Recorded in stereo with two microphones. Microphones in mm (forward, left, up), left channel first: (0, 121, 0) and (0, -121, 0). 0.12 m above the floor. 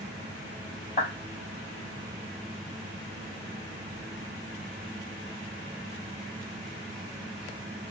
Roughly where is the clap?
Left.